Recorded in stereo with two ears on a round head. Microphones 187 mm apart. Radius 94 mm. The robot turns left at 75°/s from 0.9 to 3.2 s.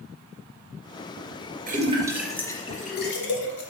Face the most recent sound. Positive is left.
turn(degrees=65)  # may be behind; listen again after turning